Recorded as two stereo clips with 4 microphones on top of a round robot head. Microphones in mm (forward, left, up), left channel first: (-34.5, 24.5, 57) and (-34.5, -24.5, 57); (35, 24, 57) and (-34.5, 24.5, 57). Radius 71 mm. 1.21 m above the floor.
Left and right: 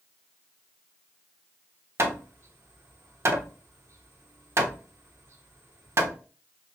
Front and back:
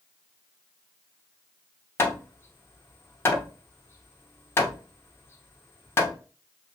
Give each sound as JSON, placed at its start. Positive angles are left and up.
{"t": 2.0, "sound": "hammering", "azimuth_deg": -60, "distance_m": 0.7}